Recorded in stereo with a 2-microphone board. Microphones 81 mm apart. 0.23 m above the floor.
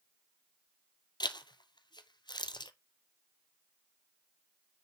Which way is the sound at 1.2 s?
65° left (ahead or behind).